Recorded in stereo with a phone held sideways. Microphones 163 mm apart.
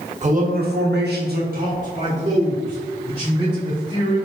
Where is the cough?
No cough in this recording.